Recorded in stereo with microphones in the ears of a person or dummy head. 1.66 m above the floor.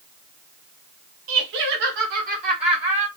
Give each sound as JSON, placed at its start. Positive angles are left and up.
{"t": 1.3, "sound": "laughter", "side_deg": -85, "distance_m": 0.7}